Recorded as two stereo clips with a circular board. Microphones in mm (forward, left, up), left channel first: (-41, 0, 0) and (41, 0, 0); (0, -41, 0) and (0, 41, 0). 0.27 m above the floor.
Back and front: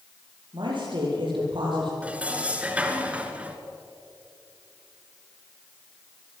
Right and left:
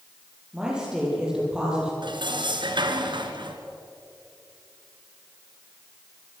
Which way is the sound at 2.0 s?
75° left.